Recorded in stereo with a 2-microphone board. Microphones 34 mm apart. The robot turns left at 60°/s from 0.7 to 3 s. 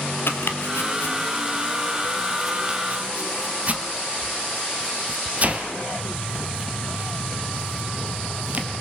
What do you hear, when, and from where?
0.3 s chopping: 85° left, 2 m; by 8.7 s 40° right (ahead or behind), 2 m